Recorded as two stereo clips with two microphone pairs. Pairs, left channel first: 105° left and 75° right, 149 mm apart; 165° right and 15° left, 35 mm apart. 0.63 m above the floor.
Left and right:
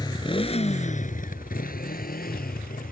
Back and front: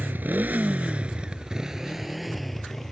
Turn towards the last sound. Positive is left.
turn(degrees=115)